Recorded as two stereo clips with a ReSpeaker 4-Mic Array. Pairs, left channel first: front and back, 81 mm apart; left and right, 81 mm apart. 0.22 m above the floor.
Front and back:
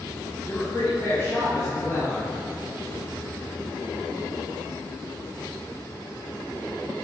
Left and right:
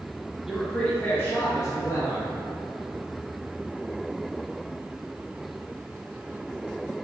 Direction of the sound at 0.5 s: 20° right.